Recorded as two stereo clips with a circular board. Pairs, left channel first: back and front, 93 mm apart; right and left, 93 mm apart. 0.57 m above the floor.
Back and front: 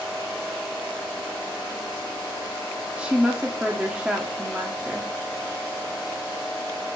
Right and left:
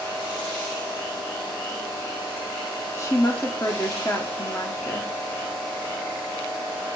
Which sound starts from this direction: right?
A woman speaking, at 3.0 s.